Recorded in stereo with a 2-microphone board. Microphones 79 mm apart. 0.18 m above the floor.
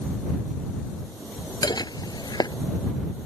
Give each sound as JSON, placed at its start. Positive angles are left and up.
{"t": 1.6, "sound": "dishes clattering", "side_deg": 70}